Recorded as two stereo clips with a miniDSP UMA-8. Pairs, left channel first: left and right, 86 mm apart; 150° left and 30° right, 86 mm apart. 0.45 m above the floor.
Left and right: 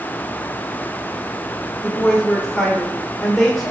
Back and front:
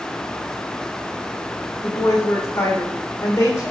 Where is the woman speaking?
Straight behind, 1.5 m.